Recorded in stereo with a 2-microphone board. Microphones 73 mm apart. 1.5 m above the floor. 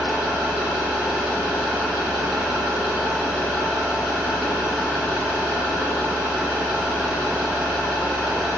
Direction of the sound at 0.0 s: 15° right (ahead or behind).